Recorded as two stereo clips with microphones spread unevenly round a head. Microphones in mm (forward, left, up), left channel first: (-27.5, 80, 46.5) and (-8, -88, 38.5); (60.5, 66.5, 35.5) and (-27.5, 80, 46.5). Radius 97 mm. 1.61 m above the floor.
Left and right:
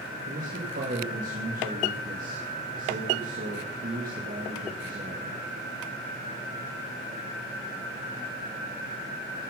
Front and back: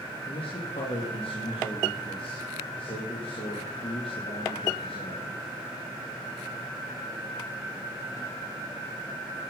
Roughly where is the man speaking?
Ahead right.